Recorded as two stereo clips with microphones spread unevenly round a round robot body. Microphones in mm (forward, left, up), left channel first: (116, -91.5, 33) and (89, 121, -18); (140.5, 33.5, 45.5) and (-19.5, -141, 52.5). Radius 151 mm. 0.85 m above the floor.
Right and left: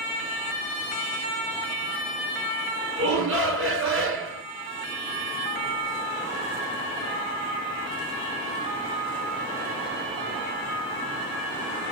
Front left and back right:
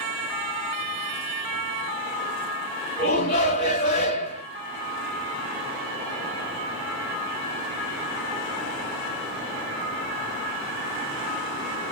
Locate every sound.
3.0 s a shout: 100° left, 2 m